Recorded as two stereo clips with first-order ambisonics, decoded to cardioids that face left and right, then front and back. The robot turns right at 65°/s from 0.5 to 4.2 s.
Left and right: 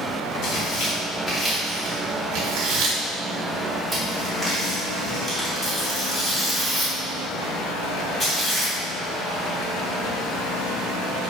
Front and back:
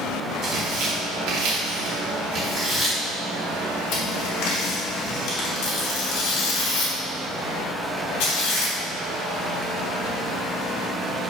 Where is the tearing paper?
130° left, 3 m; by 8.7 s 10° left, 3 m.